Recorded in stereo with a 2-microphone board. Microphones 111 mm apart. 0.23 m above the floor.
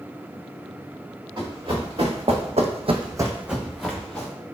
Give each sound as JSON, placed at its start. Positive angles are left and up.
{"t": 1.4, "sound": "running footsteps", "side_deg": -45, "distance_m": 1.8}